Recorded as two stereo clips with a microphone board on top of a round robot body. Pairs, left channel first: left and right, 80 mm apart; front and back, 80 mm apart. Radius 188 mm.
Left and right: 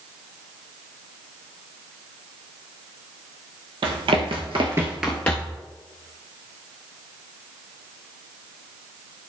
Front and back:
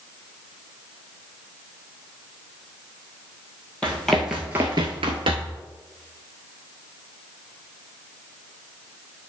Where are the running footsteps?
80° right, 1.2 m; by 5.6 s 150° left, 1.0 m.